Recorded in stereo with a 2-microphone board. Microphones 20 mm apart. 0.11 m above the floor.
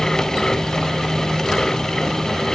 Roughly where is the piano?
No piano in this recording.